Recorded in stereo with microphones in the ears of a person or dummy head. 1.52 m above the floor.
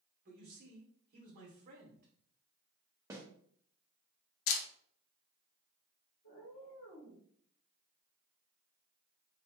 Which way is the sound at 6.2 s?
45° left (ahead or behind).